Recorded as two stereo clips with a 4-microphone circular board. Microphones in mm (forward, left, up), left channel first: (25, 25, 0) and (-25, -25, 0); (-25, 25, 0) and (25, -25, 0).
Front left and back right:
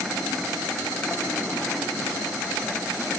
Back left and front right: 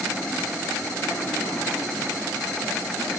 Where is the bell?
No bell in this recording.